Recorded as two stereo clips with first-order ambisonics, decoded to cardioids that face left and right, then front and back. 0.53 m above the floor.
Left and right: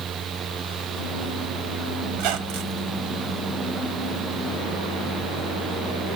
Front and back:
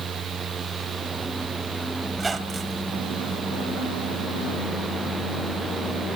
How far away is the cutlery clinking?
No cutlery clinking in this recording.